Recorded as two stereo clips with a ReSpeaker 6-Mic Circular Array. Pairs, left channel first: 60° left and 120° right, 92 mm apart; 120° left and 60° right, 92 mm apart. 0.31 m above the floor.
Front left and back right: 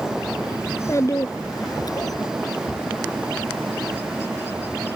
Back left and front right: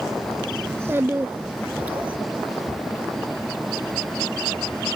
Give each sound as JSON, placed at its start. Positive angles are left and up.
{"t": 0.7, "sound": "a child speaking", "azimuth_deg": 0}